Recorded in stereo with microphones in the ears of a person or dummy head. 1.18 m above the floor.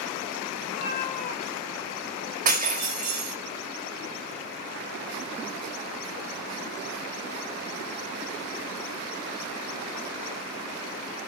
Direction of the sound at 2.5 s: 40° right (ahead or behind).